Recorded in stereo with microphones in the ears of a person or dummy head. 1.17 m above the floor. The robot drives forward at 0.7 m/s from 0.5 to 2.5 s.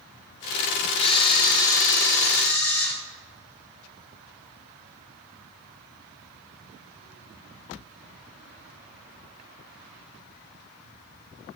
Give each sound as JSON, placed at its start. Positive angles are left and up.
{"t": 1.0, "sound": "a camera shutter", "side_deg": 35, "distance_m": 0.7}